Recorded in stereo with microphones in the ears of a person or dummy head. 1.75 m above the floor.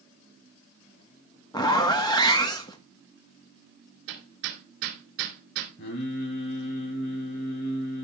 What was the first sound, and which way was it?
A zipper, 20° left (ahead or behind).